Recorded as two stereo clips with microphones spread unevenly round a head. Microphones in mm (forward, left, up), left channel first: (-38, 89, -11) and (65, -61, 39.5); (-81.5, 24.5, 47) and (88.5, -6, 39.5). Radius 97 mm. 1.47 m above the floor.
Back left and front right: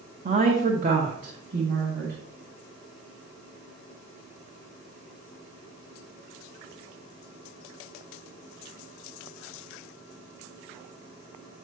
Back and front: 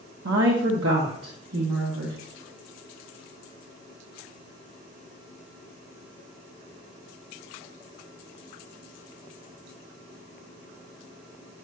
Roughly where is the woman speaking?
Ahead.